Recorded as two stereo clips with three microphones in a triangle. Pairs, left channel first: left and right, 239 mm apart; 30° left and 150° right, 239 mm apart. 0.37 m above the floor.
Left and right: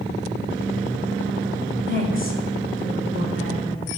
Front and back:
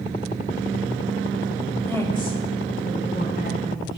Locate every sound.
1.9 s a woman speaking: 110° left, 1.4 m; by 4.0 s 70° left, 3.5 m